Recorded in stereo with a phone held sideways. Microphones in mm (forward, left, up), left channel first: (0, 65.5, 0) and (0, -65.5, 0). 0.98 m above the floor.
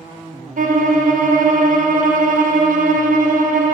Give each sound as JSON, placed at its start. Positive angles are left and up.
{"t": 0.6, "sound": "a violin", "side_deg": -70, "distance_m": 0.6}